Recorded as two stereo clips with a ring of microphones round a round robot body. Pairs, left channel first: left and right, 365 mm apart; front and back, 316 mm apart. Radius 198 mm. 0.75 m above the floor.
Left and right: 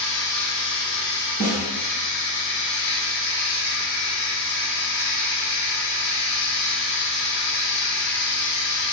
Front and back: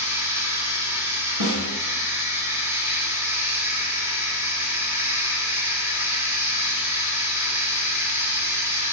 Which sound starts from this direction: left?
Running water, at 0.0 s.